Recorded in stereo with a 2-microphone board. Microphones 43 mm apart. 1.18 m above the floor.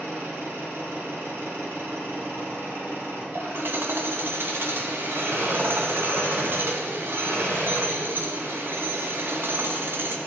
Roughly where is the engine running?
Right.